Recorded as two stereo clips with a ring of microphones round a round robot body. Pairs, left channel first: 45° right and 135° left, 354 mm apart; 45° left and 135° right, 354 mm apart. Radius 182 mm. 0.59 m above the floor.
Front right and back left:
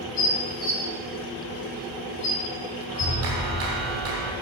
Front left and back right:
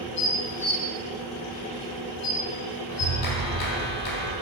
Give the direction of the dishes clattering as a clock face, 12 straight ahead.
12 o'clock.